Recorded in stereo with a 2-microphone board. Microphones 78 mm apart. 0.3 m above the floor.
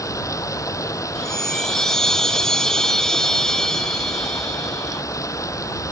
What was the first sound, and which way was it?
Running water, 45° left (ahead or behind).